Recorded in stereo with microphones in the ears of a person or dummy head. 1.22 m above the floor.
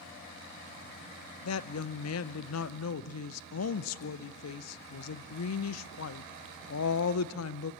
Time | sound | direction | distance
1.4 | a woman speaking | 80° left | 0.7 m